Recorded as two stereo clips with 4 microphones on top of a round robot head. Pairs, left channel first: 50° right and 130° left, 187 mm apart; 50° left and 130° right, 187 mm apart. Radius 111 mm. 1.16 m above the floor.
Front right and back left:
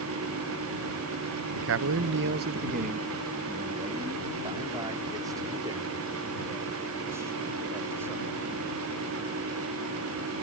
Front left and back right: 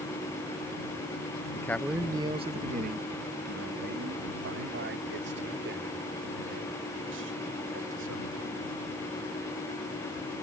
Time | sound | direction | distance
1.6 | a man speaking | 125° left | ?